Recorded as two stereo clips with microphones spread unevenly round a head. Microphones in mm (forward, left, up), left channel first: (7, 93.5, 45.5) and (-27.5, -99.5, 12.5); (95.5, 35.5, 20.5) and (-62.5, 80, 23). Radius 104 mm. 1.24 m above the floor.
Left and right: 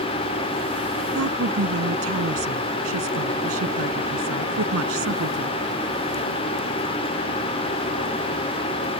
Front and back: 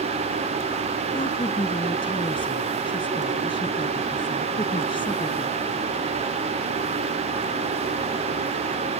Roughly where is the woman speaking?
Right.